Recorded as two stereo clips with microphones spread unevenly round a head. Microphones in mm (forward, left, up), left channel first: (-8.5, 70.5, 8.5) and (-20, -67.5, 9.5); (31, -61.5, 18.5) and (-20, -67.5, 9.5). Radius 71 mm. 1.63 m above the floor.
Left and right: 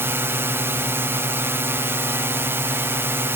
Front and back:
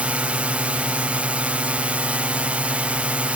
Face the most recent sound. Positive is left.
turn(degrees=-155)